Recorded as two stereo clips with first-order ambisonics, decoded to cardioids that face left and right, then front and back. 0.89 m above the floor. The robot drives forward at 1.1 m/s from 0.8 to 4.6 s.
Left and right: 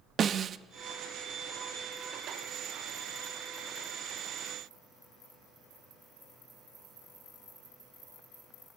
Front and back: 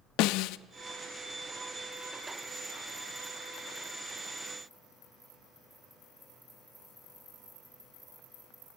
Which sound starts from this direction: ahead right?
A snare drum, at 0.2 s.